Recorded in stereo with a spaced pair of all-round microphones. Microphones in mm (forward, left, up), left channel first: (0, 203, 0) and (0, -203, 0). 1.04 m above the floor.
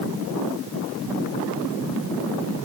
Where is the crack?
No crack in this recording.